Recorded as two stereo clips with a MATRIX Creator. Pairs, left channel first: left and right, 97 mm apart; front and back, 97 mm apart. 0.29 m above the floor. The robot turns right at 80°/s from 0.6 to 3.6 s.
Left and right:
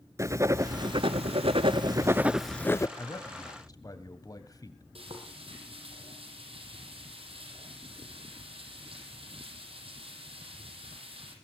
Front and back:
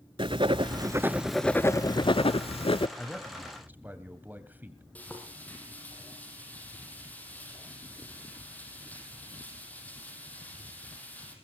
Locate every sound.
0.2 s writing: 150° right, 0.6 m; by 2.9 s 35° left, 0.6 m
3.0 s a man speaking: 65° left, 1.9 m; by 4.8 s 115° left, 1.9 m
5.0 s frying: 75° right, 5.5 m